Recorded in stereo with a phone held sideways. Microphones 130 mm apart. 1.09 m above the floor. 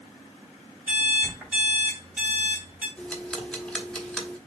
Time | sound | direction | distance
0.9 | an alarm clock | 10° right (ahead or behind) | 2.5 m
3.0 | ticking | 5° left (ahead or behind) | 1.0 m